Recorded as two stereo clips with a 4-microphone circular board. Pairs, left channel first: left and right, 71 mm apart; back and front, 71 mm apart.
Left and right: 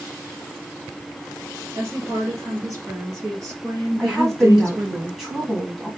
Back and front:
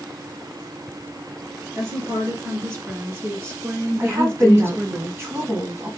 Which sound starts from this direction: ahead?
A woman speaking, at 4.0 s.